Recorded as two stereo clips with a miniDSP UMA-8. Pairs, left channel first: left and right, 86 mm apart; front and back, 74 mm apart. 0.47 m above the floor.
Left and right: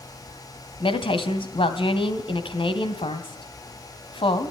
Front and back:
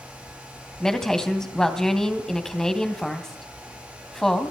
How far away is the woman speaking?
About 3 m.